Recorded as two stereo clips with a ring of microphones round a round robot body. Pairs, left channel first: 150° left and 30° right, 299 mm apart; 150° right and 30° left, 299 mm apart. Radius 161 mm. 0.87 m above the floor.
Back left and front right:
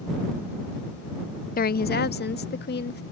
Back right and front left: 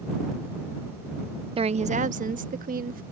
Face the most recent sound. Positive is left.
turn(degrees=95)